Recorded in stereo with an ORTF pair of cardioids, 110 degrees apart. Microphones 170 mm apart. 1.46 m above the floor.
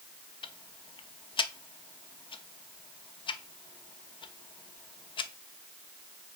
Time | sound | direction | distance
0.4 | ticking | 30° left | 0.8 m